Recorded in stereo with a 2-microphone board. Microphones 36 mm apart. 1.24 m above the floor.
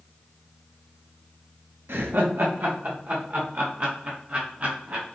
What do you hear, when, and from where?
1.9 s laughter: 90° right, 0.7 m; by 5.0 s 50° right (ahead or behind), 2 m